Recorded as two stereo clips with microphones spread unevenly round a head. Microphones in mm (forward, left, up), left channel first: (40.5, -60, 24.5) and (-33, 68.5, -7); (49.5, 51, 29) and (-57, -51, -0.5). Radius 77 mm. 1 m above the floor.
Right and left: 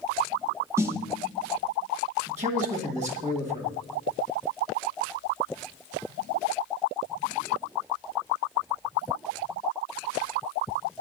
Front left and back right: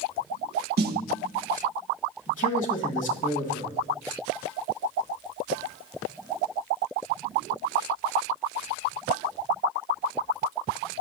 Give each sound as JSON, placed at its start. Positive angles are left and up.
{"t": 0.8, "sound": "a snare drum", "azimuth_deg": -160, "distance_m": 0.5}
{"t": 2.3, "sound": "a man speaking", "azimuth_deg": 90, "distance_m": 1.5}